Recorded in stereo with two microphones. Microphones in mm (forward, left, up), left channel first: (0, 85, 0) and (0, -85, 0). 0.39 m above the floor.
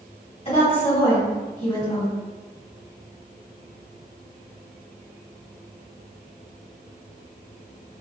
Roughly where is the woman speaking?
Left.